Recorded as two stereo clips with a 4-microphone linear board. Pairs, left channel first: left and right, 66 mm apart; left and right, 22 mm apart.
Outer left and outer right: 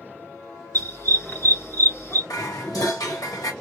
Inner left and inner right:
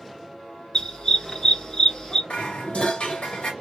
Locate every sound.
0.7 s a dog barking: 40° left (ahead or behind), 1.2 m
2.3 s dishes clattering: 70° left (ahead or behind), 1.3 m